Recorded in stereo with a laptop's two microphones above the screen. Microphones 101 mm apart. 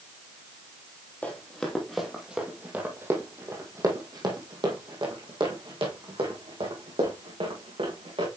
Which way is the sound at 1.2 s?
15° left (ahead or behind).